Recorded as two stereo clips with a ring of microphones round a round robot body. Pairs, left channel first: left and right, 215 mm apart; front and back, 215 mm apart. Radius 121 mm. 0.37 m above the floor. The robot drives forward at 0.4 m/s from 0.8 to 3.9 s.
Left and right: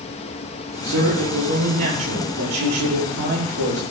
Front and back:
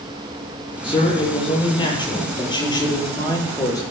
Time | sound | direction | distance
0.8 | a man speaking | 65° right | 9 m